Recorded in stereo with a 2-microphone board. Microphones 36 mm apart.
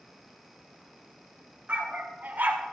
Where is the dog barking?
45° right (ahead or behind), 2.5 m; by 2.7 s 55° right (ahead or behind), 1.6 m.